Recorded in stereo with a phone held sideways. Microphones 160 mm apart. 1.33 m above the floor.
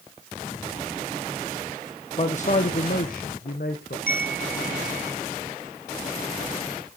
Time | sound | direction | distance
2.2 | a man speaking | 45° left (ahead or behind) | 0.7 m
4.1 | a chime | 65° left (ahead or behind) | 1.0 m